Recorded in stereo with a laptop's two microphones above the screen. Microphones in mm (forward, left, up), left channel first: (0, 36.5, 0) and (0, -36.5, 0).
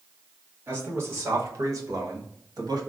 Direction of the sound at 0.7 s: 30° right (ahead or behind).